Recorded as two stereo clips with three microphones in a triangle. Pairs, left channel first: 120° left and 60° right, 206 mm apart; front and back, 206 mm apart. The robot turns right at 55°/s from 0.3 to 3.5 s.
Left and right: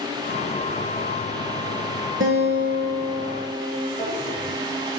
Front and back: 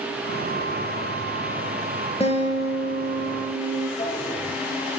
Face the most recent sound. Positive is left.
turn(degrees=45)